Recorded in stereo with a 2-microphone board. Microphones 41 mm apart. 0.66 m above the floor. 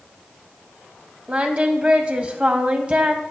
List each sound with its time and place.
1.3 s singing: 30° right (ahead or behind), 0.6 m